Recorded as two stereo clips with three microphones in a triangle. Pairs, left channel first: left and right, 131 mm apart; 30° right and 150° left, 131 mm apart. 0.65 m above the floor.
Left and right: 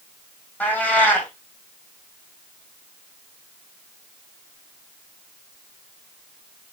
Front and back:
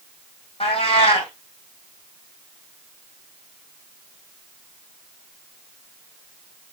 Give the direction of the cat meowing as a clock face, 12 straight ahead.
12 o'clock.